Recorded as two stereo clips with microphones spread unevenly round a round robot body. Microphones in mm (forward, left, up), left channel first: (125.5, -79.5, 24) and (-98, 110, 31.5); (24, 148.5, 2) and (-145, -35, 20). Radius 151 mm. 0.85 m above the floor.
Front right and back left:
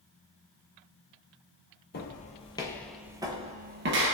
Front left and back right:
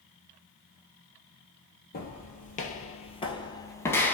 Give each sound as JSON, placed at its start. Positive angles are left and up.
{"t": 1.9, "sound": "footsteps", "azimuth_deg": 0, "distance_m": 1.0}